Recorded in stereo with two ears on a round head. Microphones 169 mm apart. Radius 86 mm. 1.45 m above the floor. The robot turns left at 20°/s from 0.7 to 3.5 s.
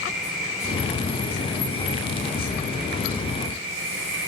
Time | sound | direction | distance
0.0 | an insect | straight ahead | 8.5 m